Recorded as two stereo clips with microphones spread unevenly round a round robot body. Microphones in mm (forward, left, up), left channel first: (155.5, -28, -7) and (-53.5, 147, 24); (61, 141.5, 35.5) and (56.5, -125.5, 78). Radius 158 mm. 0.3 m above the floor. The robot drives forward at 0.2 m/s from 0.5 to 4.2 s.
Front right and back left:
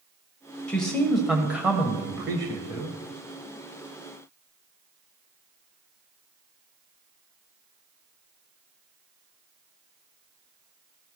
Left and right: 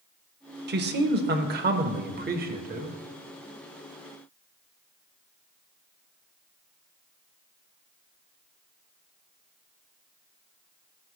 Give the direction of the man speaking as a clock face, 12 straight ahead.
4 o'clock.